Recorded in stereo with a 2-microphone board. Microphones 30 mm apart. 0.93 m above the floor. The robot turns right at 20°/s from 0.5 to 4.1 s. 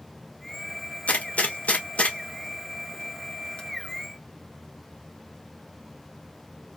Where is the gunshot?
50° left (ahead or behind), 1.3 m; by 3.6 s 30° left (ahead or behind), 1.3 m.